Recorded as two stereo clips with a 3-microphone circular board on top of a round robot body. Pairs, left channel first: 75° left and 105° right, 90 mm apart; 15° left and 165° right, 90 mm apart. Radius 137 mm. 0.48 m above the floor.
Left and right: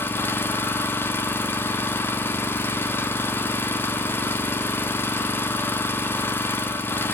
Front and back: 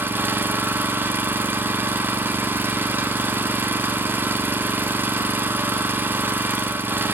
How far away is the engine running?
About 0.9 m.